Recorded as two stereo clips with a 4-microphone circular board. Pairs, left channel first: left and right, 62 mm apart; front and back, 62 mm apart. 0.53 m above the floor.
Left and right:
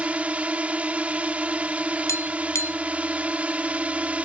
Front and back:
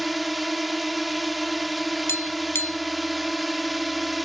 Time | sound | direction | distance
0.0 | a drone | 95° right | ?
2.1 | tapping | 45° left | ?